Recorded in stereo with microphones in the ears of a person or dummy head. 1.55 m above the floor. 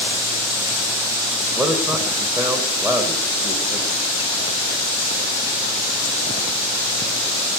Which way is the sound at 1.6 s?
10° right (ahead or behind).